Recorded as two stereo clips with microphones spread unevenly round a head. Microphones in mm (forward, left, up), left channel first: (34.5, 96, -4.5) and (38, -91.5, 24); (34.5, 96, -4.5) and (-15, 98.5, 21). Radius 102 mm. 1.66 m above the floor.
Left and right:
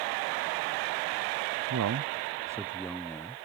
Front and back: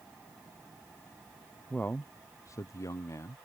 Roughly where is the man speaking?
Right.